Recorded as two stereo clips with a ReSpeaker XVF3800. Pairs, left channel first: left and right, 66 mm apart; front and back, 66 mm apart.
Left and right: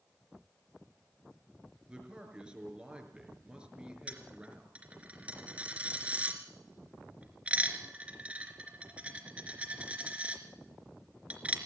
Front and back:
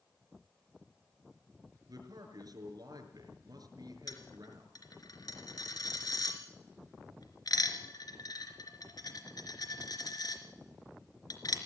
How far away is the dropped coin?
About 3.5 m.